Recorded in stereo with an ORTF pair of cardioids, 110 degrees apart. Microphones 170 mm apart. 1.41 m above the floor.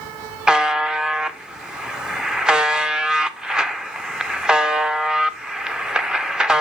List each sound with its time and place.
0.5 s a buzzer: 5° right, 0.6 m